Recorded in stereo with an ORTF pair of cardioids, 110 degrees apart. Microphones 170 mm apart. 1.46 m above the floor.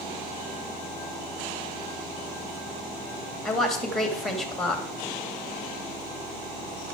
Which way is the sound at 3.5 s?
Straight ahead.